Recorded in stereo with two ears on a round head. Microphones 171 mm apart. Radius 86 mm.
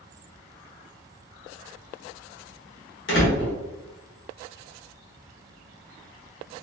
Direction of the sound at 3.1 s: 60° left (ahead or behind).